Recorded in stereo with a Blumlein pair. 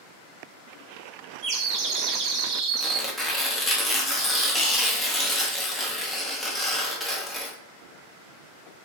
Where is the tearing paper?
5° left, 0.6 m.